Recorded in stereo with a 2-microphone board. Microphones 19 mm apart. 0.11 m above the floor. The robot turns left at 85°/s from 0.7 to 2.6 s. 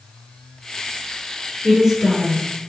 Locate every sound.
1.6 s a woman speaking: 20° right (ahead or behind), 1.2 m; by 2.5 s 5° left (ahead or behind), 1.2 m